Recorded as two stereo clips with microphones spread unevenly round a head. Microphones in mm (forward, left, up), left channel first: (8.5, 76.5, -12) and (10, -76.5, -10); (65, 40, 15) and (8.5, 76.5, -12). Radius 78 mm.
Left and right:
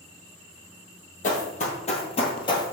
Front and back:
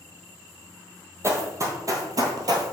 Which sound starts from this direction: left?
Running footsteps, at 1.2 s.